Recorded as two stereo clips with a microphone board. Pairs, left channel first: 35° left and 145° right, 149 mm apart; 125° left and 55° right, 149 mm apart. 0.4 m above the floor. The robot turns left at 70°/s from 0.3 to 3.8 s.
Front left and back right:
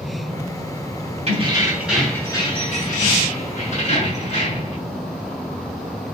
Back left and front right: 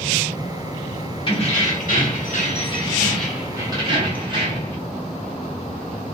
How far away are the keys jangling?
About 1.1 m.